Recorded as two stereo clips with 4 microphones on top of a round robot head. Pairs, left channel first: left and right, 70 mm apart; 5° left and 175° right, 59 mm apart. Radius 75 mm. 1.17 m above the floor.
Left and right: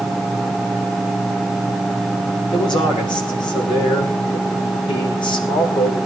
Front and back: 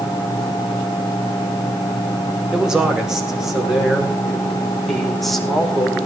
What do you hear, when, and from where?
2.5 s a man speaking: 110° left, 6 m; by 6.1 s 90° left, 5.5 m